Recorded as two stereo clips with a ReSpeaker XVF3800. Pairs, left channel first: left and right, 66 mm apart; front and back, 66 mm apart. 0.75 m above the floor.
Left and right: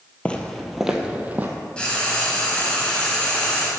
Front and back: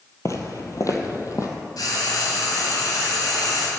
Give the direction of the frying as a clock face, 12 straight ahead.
11 o'clock.